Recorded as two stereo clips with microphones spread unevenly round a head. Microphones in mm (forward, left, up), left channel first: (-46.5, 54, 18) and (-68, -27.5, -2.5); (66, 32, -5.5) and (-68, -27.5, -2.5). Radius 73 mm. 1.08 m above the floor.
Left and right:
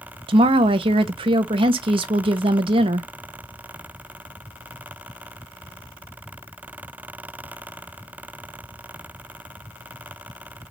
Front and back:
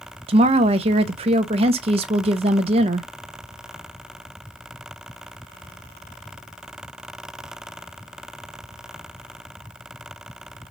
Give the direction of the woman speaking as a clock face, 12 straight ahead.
3 o'clock.